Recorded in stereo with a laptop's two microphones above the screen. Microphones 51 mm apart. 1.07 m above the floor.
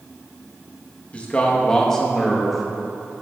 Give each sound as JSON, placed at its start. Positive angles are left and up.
{"t": 1.1, "sound": "a man speaking", "side_deg": 25, "distance_m": 1.4}